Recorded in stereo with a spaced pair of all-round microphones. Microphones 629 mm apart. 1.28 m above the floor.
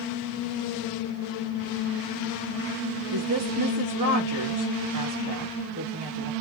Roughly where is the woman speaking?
Right.